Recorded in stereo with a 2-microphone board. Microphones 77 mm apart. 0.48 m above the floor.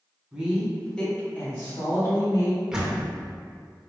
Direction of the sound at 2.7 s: 10° right (ahead or behind).